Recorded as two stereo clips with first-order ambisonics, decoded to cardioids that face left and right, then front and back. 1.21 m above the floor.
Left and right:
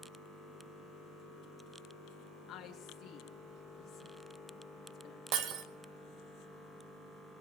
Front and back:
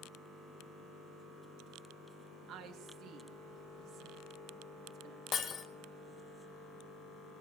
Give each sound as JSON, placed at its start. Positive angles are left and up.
{"t": 2.5, "sound": "a woman speaking", "azimuth_deg": 135, "distance_m": 2.5}
{"t": 5.3, "sound": "breaking glass", "azimuth_deg": -60, "distance_m": 1.7}